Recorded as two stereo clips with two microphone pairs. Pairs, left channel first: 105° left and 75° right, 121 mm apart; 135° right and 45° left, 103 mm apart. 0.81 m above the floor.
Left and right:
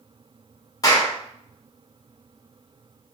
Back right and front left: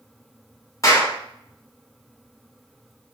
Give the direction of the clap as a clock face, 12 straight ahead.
7 o'clock.